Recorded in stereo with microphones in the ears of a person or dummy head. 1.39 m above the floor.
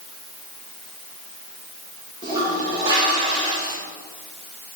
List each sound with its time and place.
2.2 s a toilet flushing: 20° right (ahead or behind), 2 m